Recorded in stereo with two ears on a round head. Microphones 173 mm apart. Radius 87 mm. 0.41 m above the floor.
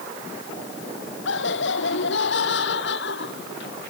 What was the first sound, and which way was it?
Laughter, 70° left (ahead or behind).